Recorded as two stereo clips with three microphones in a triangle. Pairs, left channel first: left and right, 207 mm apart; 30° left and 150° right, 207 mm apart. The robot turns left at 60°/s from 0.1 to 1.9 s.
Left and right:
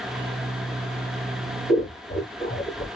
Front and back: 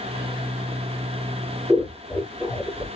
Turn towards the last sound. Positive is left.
turn(degrees=110)